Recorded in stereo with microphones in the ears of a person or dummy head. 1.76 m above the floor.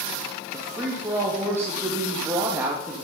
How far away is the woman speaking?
About 2.5 m.